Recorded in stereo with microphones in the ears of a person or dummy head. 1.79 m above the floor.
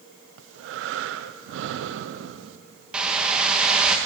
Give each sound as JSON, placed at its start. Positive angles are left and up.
{"t": 0.4, "sound": "breathing", "side_deg": -65, "distance_m": 0.9}
{"t": 2.9, "sound": "a whoosh", "side_deg": -5, "distance_m": 2.0}